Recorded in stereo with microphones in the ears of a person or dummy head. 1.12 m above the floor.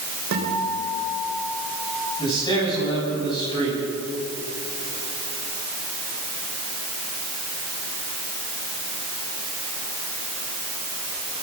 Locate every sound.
0.3 s a guitar: 65° right (ahead or behind), 4 m
2.2 s a man speaking: 30° left (ahead or behind), 9.5 m